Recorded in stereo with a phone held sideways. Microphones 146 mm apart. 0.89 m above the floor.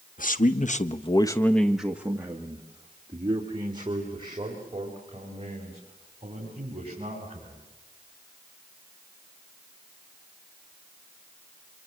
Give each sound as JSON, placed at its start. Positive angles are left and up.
{"t": 0.2, "sound": "a man speaking", "side_deg": 65, "distance_m": 1.3}